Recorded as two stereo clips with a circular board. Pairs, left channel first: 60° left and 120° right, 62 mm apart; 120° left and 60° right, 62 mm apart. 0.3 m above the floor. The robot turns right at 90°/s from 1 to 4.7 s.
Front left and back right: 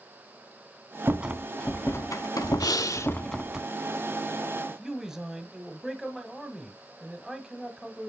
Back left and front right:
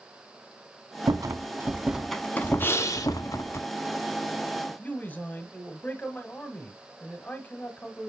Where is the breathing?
65° left, 0.7 m; by 3.2 s 115° left, 0.7 m.